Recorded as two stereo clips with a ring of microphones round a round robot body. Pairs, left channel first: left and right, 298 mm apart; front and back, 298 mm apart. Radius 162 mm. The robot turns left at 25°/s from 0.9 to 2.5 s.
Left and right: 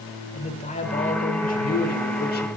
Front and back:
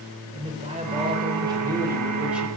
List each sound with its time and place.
0.3 s a man speaking: 135° left, 1.0 m; by 2.5 s 95° left, 1.0 m